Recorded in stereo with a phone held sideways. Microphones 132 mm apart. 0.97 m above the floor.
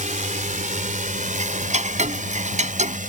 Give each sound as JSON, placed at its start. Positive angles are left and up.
{"t": 0.0, "sound": "a drone", "side_deg": -75}
{"t": 1.3, "sound": "ticking", "side_deg": -65}